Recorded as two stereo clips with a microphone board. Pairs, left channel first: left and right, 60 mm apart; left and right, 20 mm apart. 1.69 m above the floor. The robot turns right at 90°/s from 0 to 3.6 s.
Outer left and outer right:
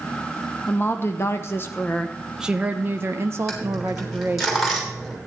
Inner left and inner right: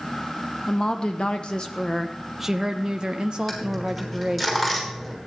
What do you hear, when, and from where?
0.7 s a woman speaking: 35° left, 0.7 m; by 4.5 s 60° right, 0.7 m
3.5 s a dropped coin: 5° left (ahead or behind), 3 m; by 5.2 s 5° right (ahead or behind), 3 m